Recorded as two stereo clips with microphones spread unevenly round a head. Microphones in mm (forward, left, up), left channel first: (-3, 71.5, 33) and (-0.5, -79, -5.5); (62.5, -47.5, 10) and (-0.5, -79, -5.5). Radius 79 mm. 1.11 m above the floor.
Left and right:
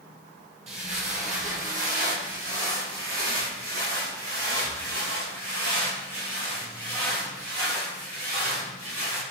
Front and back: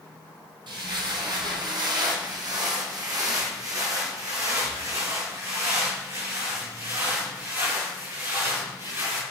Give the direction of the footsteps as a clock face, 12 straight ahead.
5 o'clock.